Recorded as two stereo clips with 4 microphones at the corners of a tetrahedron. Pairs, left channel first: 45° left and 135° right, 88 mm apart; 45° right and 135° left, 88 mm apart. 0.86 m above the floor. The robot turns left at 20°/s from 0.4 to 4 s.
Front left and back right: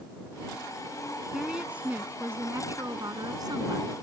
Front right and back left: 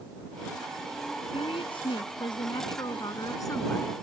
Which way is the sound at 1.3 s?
50° right.